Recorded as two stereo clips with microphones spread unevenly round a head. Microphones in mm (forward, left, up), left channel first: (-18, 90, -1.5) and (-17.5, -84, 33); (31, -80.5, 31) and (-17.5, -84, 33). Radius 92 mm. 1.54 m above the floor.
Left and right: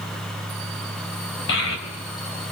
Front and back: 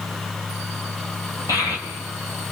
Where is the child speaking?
60° left, 4.5 m.